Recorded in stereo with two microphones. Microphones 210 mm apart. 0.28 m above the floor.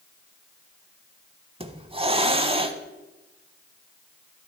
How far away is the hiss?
About 0.6 m.